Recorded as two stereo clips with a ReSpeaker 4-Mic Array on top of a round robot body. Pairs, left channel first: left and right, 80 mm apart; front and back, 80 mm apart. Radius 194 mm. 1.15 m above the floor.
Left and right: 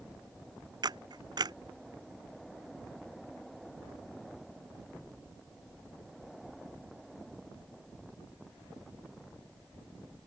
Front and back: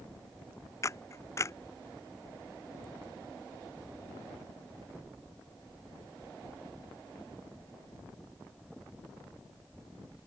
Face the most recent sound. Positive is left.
turn(degrees=-55)